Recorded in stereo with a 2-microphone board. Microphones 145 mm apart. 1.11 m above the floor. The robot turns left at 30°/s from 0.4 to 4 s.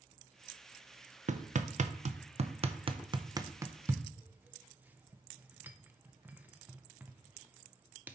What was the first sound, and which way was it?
Hammering, 55° right (ahead or behind).